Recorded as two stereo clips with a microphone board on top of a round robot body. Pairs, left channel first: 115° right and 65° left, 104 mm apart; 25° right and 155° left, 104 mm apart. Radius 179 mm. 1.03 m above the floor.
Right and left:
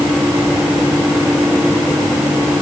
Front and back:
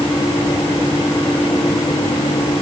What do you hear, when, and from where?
Only background noise.